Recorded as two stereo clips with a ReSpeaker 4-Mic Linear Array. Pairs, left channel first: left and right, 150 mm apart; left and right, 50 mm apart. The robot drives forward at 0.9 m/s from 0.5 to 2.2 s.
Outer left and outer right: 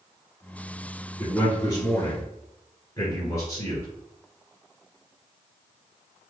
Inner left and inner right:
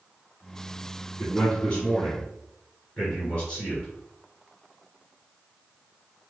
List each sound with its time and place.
1.2 s a man speaking: 30° left (ahead or behind), 1.7 m; by 3.9 s 25° left (ahead or behind), 1.9 m